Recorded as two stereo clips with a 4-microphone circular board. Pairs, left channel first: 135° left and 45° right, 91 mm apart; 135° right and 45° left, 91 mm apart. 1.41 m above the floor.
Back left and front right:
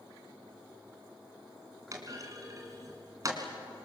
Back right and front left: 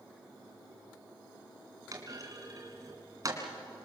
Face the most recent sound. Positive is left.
turn(degrees=0)